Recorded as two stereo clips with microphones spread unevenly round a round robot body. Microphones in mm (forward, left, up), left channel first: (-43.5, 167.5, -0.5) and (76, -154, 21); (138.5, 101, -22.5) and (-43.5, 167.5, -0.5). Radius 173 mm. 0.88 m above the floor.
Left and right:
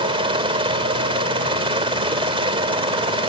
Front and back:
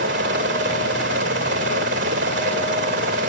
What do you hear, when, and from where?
0.0 s a helicopter: 145° right